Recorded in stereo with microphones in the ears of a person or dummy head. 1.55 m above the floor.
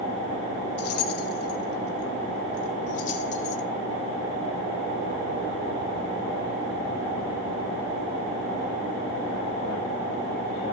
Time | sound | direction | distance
0.8 | keys jangling | 65° left (ahead or behind) | 3 m